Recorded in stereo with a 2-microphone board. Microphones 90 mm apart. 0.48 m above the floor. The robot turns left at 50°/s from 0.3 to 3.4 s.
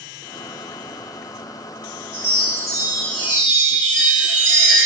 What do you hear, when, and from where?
2.1 s a chime: 105° right, 0.9 m; by 4.9 s 170° right, 0.9 m